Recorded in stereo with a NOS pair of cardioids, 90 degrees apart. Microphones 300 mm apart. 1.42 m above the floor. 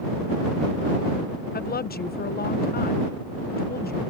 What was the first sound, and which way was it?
A woman speaking, 30° left.